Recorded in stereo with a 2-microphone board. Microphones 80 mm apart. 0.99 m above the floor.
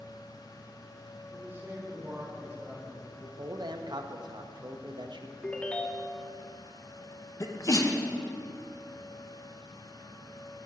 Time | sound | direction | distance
1.3 | a man speaking | 30° right (ahead or behind) | 3 m
3.4 | a man speaking | 65° right (ahead or behind) | 0.7 m
5.4 | a ringtone | 15° left (ahead or behind) | 0.5 m
7.4 | a sneeze | 45° left (ahead or behind) | 0.9 m